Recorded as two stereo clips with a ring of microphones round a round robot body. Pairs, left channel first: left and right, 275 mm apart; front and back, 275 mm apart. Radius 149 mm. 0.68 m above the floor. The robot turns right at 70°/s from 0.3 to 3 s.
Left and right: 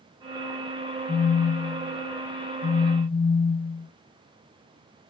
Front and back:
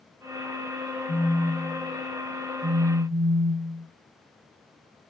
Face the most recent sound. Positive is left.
turn(degrees=145)